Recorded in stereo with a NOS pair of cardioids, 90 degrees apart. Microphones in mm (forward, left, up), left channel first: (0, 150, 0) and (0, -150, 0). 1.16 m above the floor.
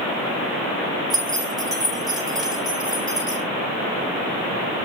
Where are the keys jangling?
15° right, 2.5 m.